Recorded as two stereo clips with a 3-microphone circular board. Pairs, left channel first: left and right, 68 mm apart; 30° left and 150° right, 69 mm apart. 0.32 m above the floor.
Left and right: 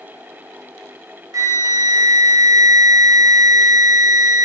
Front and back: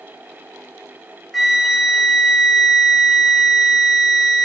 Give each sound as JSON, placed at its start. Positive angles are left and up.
{"t": 1.3, "sound": "a flute", "azimuth_deg": -60, "distance_m": 0.6}